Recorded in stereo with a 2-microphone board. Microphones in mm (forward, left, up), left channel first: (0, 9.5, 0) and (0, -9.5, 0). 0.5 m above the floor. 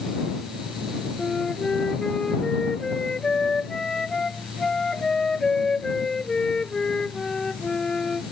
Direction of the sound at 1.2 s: 35° left (ahead or behind).